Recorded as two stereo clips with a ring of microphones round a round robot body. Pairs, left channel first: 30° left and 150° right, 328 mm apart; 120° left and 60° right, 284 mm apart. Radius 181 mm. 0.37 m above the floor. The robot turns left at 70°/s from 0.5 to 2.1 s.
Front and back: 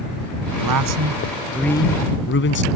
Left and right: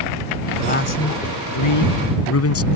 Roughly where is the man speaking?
Behind.